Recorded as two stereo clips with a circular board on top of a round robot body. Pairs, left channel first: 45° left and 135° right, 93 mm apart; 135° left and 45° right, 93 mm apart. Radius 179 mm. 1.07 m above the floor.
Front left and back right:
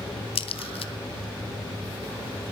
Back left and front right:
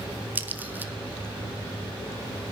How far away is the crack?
About 1.0 m.